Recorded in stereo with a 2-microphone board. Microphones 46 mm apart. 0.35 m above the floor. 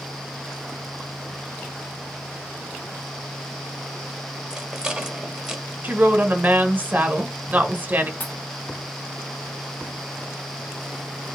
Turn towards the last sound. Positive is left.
turn(degrees=40)  # may be behind; listen again after turning